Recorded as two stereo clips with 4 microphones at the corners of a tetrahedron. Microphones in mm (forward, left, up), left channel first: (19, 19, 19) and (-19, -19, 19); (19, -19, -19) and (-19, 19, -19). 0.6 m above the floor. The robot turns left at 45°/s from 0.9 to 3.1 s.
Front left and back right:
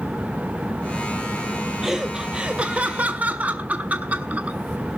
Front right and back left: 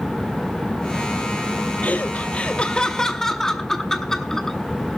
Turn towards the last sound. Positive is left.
turn(degrees=-115)